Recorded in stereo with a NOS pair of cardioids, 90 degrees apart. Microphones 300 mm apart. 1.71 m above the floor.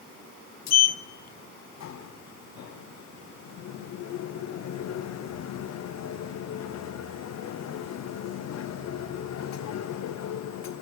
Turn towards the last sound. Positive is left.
turn(degrees=60)